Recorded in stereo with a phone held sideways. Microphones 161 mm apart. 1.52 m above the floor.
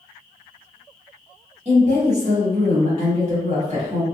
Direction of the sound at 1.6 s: 45° right (ahead or behind).